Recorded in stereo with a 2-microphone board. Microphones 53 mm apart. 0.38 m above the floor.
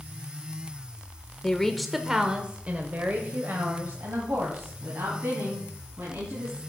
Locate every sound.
1.4 s a woman speaking: 15° left (ahead or behind), 0.9 m; by 6.6 s 60° right (ahead or behind), 3.5 m